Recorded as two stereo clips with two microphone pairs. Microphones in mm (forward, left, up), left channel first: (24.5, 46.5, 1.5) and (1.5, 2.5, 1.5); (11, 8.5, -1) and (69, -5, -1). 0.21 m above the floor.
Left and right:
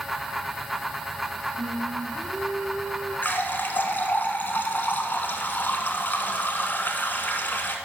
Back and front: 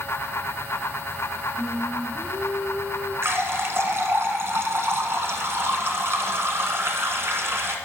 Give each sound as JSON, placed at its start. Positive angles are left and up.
{"t": 1.6, "sound": "singing", "azimuth_deg": -115, "distance_m": 3.0}
{"t": 3.2, "sound": "a running tap", "azimuth_deg": 20, "distance_m": 1.4}